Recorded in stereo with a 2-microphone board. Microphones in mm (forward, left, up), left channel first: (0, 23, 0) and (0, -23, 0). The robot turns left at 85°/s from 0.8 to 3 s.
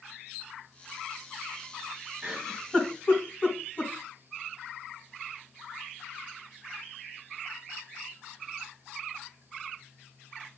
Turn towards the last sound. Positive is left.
turn(degrees=35)  # may be behind; listen again after turning